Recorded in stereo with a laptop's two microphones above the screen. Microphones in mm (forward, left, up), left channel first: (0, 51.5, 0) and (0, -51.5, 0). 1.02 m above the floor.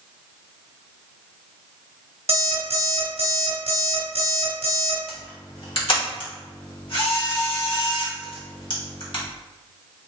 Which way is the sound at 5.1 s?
55° left (ahead or behind).